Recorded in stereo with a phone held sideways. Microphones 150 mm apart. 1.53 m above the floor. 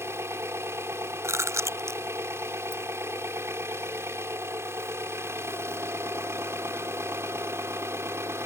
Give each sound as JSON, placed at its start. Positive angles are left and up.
{"t": 0.0, "sound": "an engine running", "side_deg": -20}
{"t": 1.2, "sound": "chewing", "side_deg": -20}